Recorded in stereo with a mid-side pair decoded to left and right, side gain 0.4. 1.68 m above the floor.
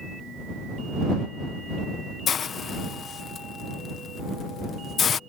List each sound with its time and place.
2.3 s a hiss: 55° left